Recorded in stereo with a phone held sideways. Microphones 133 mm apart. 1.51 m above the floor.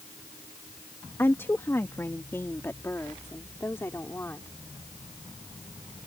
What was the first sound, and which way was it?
A woman speaking, 20° left (ahead or behind).